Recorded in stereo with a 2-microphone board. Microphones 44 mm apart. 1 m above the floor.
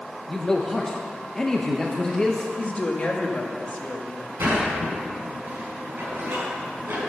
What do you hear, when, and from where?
0.3 s a man speaking: 15° left (ahead or behind), 0.8 m
2.6 s a woman speaking: 35° left (ahead or behind), 1.3 m
4.4 s a sliding door: 60° right (ahead or behind), 5 m